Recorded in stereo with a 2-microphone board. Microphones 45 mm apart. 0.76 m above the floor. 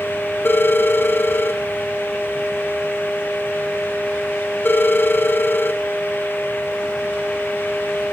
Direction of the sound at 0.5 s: 50° left (ahead or behind).